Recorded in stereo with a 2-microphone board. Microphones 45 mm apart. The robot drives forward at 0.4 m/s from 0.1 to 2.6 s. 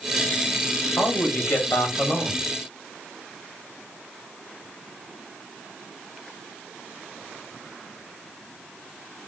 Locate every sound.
1.0 s a man speaking: 45° left (ahead or behind), 2.5 m; by 2.4 s 50° left (ahead or behind), 2 m